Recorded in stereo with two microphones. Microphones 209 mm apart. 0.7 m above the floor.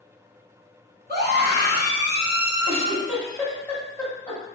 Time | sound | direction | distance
1.1 | a scream | 50° right (ahead or behind) | 1.1 m
2.7 | a giggle | 10° left (ahead or behind) | 1.2 m